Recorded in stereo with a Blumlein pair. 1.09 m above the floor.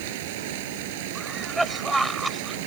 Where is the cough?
5° right.